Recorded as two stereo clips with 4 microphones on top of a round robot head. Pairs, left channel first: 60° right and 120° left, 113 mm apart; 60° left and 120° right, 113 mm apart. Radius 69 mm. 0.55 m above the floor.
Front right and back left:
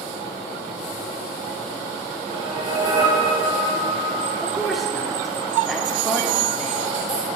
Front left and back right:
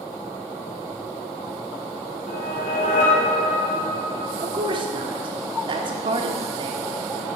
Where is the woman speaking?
150° right, 1.1 m.